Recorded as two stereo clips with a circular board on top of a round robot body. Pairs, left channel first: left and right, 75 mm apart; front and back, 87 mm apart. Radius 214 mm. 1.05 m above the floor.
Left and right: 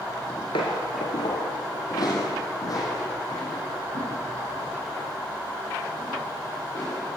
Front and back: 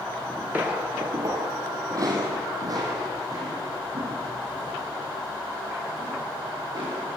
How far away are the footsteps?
About 1.0 m.